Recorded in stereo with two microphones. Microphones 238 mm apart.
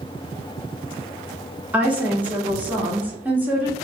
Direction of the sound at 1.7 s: 5° right (ahead or behind).